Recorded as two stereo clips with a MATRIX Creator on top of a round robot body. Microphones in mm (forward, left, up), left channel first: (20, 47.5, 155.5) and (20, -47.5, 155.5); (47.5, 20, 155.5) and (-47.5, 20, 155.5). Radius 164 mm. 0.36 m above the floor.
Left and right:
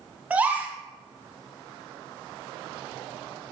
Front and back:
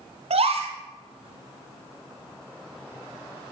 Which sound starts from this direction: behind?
A gasp, at 0.3 s.